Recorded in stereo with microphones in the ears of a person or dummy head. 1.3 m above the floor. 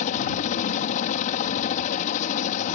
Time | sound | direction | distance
0.0 | a helicopter | 45° left (ahead or behind) | ?